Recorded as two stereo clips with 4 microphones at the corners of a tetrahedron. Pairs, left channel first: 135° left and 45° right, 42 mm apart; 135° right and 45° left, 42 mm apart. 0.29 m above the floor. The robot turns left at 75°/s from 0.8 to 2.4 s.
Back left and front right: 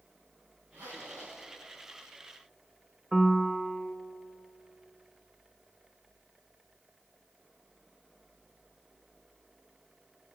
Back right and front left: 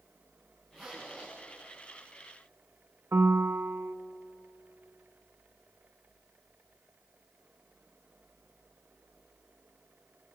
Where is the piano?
45° left, 0.5 m.